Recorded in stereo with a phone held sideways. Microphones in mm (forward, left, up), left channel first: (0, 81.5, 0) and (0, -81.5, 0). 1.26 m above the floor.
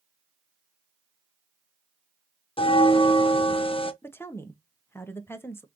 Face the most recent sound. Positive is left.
turn(degrees=15)  # may be behind; listen again after turning